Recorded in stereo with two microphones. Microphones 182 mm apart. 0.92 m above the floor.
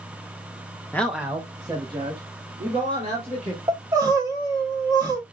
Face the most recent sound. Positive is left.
turn(degrees=-20)  # may be behind; listen again after turning